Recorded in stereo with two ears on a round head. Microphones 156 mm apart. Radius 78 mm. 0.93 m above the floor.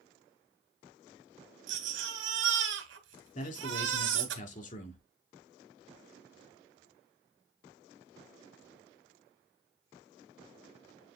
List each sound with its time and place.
1.7 s a baby crying: 80° right, 1.7 m
3.4 s a man speaking: 45° left (ahead or behind), 2.0 m